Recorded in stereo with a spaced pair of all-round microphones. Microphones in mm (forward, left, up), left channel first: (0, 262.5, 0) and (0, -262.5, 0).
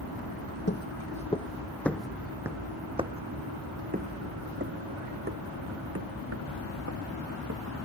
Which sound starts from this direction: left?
Footsteps, at 0.7 s.